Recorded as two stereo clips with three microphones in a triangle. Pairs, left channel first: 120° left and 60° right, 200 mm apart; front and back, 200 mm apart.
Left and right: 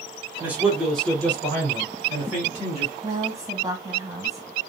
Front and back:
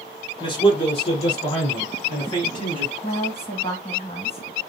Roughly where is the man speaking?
Ahead.